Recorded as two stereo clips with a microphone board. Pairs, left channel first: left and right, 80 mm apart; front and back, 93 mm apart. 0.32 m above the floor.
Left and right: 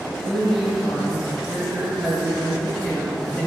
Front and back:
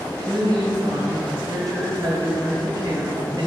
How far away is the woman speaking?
About 1.7 m.